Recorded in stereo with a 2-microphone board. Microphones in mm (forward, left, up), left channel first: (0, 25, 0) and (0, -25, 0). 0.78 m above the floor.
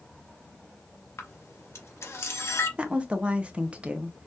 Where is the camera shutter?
65° left (ahead or behind), 1.0 m.